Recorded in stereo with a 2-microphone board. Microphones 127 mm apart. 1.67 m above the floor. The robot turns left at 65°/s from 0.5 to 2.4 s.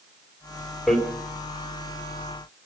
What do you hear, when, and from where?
0.9 s hammering: centre (ahead or behind), 4 m; by 1.0 s 10° left (ahead or behind), 4 m